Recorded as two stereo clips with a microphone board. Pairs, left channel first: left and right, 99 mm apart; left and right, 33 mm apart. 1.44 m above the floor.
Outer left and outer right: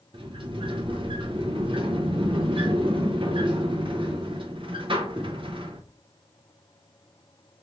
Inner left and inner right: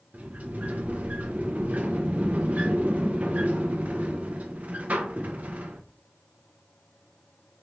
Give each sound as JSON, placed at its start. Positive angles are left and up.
{"t": 0.1, "sound": "a sliding door", "side_deg": -60, "distance_m": 0.9}